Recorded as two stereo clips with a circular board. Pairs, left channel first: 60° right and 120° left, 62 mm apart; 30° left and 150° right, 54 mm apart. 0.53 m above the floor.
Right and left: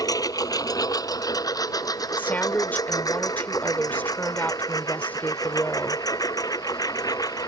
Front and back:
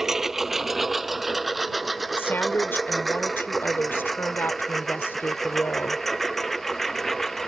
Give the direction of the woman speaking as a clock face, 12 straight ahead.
12 o'clock.